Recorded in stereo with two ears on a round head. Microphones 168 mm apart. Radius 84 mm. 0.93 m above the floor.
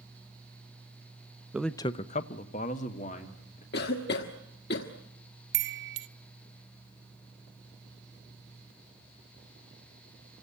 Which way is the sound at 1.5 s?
5° right (ahead or behind).